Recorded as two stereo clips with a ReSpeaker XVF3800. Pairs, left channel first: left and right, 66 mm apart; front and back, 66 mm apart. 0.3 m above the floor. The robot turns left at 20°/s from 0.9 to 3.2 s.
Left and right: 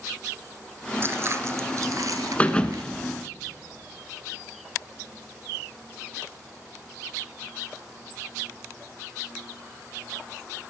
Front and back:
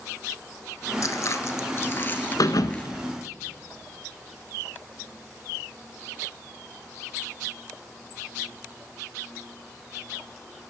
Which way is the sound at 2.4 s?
20° left.